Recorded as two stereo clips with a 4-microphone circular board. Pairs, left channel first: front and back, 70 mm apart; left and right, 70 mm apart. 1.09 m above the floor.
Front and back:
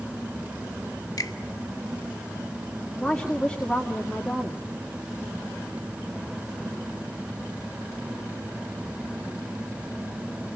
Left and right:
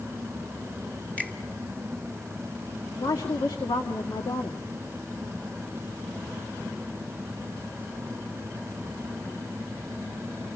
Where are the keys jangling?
I don't hear keys jangling.